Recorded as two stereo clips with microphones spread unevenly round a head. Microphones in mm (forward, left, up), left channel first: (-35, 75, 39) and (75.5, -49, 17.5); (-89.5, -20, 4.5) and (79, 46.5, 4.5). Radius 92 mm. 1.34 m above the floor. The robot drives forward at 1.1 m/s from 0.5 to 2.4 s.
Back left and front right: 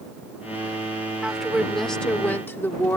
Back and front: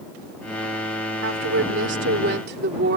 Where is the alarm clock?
I don't hear an alarm clock.